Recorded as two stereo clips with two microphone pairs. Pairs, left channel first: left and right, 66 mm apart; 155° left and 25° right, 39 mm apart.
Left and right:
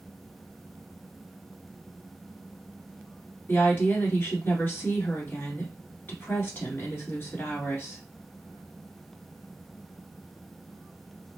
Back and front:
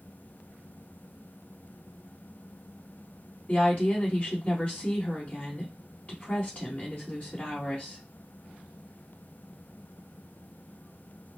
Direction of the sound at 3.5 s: 125° left.